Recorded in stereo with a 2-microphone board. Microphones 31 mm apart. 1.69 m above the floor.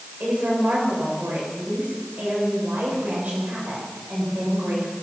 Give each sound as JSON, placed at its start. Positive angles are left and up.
{"t": 0.2, "sound": "a woman speaking", "side_deg": -85, "distance_m": 8.0}